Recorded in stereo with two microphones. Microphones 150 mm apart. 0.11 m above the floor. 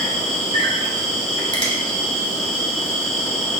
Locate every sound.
0.0 s an insect: 50° left (ahead or behind), 0.9 m
1.5 s a finger snap: 35° left (ahead or behind), 1.0 m